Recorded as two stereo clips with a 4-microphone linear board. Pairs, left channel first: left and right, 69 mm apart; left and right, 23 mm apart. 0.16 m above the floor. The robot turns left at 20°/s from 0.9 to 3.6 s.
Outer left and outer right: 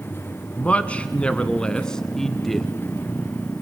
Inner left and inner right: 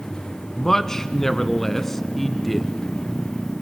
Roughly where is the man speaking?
Centre.